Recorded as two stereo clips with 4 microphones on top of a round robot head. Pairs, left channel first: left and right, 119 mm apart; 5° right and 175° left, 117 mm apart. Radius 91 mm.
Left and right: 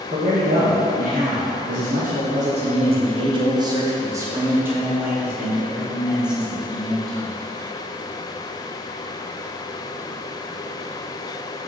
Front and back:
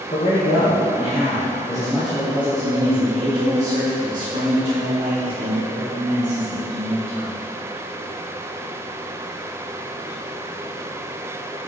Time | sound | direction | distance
0.1 | a man speaking | 45° right | 1.8 m